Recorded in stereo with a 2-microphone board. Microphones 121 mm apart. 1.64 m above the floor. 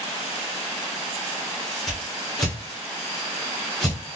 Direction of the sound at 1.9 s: 5° left (ahead or behind).